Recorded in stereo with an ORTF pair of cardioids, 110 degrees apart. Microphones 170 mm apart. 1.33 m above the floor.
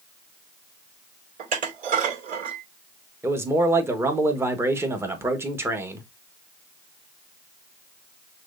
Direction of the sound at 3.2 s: 15° right.